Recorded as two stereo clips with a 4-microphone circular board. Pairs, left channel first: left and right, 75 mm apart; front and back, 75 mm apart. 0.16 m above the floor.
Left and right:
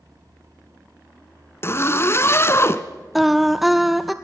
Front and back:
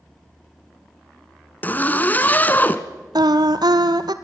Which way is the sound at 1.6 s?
55° left.